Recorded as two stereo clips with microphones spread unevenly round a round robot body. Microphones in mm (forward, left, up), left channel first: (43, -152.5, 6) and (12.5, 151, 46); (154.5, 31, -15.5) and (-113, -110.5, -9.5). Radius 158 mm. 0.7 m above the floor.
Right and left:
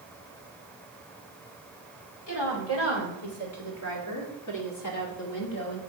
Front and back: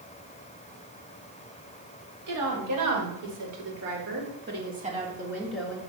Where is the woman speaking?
130° right, 4 m; by 5.8 s 55° right, 2 m.